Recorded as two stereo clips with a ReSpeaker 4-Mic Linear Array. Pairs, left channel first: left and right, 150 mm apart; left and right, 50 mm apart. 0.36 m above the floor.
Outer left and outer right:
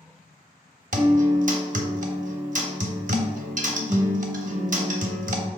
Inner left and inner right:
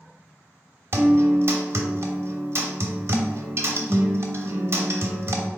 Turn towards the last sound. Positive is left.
turn(degrees=-60)  # may be behind; listen again after turning